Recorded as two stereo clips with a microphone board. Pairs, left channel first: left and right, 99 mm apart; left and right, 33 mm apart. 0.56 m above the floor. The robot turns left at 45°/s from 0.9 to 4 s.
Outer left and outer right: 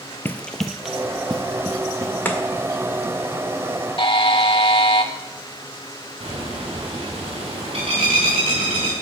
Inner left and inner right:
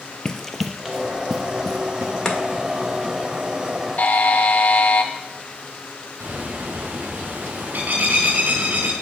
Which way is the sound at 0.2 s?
20° left (ahead or behind).